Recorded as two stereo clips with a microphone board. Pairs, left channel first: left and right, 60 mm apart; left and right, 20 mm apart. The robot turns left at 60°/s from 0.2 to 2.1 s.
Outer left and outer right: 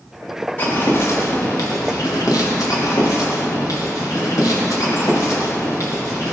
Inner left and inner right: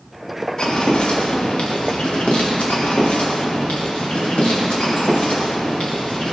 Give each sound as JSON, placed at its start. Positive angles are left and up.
{"t": 0.6, "sound": "footsteps", "side_deg": 30, "distance_m": 3.5}